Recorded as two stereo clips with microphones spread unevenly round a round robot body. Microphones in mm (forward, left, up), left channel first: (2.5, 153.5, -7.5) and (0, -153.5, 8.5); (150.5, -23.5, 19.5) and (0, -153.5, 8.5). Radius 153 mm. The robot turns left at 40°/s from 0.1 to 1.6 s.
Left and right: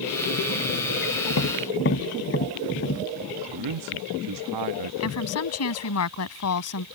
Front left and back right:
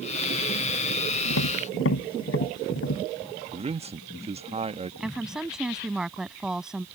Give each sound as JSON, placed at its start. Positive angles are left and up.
{"t": 1.3, "sound": "tapping", "azimuth_deg": 45}
{"t": 3.5, "sound": "a man speaking", "azimuth_deg": -85}
{"t": 5.0, "sound": "a woman speaking", "azimuth_deg": 130}